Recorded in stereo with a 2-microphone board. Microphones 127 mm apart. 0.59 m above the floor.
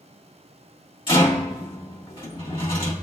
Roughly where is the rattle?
Left.